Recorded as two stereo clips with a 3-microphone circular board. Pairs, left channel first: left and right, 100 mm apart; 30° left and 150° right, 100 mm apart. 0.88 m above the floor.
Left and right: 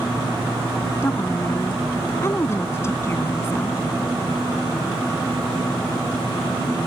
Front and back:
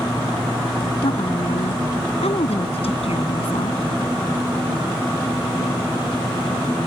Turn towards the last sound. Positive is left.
turn(degrees=25)